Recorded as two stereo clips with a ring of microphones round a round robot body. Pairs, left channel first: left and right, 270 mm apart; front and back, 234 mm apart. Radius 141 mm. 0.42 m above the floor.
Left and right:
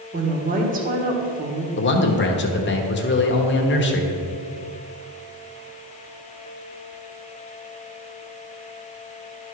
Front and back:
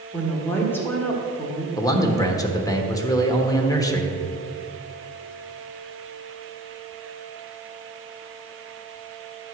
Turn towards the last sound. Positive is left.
turn(degrees=70)